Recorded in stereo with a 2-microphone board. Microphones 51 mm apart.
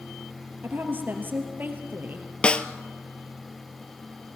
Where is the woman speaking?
40° right (ahead or behind), 3 m.